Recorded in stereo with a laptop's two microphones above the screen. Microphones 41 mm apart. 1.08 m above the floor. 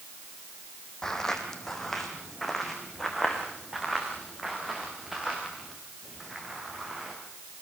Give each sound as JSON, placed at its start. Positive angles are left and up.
{"t": 1.0, "sound": "footsteps", "side_deg": 10, "distance_m": 3.5}